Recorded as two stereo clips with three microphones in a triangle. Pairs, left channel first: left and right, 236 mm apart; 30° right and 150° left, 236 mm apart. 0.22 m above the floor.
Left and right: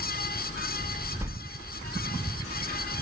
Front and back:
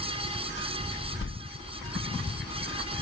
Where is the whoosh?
10° right, 0.6 m.